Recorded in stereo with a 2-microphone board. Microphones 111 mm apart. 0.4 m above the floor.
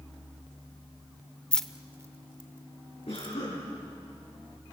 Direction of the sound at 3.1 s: 65° left (ahead or behind).